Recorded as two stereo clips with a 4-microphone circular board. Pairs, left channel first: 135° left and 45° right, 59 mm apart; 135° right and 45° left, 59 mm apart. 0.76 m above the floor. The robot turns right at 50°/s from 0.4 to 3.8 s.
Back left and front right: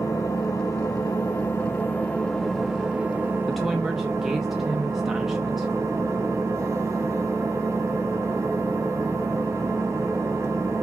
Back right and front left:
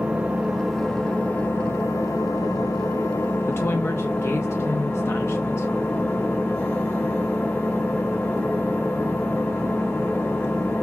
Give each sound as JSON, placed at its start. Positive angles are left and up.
{"t": 0.0, "sound": "an engine running", "azimuth_deg": 115, "distance_m": 1.3}
{"t": 3.5, "sound": "a woman speaking", "azimuth_deg": -145, "distance_m": 0.6}